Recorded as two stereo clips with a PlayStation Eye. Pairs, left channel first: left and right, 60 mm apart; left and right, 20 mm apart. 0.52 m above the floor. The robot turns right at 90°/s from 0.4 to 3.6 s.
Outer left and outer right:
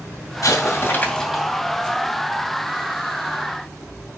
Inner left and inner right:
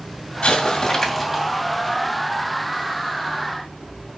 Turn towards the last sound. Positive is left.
turn(degrees=25)